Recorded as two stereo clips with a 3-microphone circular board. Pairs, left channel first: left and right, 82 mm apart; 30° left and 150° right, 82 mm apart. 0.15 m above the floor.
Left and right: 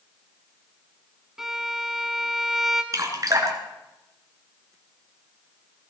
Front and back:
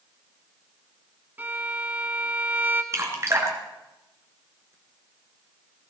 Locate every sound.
1.4 s a violin: 170° right, 1.2 m
2.9 s dripping: 115° right, 2.5 m